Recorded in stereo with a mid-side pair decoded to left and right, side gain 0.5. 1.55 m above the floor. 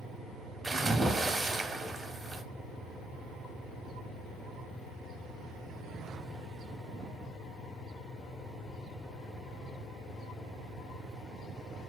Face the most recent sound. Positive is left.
turn(degrees=-25)